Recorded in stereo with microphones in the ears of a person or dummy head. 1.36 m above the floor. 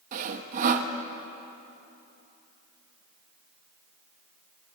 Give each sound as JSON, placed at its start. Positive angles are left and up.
{"t": 0.1, "sound": "sawing", "side_deg": -45, "distance_m": 1.0}